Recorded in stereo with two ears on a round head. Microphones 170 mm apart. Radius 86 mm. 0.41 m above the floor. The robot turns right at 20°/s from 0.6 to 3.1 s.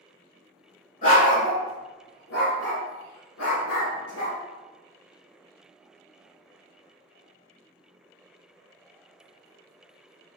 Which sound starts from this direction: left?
A dog barking, at 1.0 s.